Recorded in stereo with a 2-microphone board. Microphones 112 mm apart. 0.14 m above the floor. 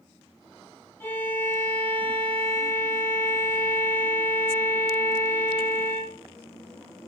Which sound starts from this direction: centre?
A violin, at 1.0 s.